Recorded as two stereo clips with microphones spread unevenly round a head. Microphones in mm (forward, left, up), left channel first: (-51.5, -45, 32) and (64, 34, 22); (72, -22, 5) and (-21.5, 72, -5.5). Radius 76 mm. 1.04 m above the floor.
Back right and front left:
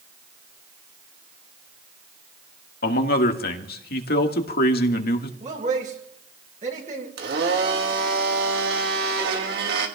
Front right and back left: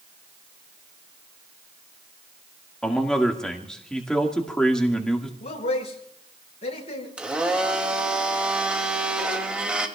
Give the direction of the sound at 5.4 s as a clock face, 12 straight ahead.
12 o'clock.